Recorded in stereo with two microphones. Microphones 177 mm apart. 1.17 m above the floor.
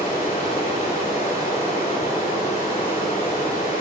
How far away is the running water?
About 3 m.